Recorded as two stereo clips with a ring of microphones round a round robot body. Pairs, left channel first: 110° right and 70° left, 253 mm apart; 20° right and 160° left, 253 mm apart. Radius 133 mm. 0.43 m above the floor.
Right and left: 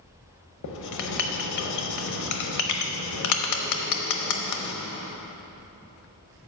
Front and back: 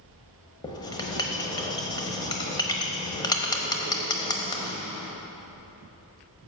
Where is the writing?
95° right, 0.9 m.